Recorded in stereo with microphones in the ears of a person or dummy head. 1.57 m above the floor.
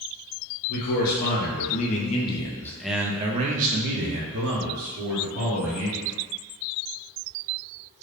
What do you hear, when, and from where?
0.7 s a man speaking: 50° left (ahead or behind), 1.3 m; by 6.2 s 85° right, 1.6 m